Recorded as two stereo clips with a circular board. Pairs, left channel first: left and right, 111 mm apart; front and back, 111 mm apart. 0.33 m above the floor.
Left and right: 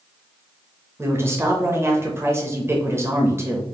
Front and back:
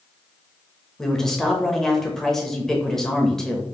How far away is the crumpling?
I don't hear crumpling.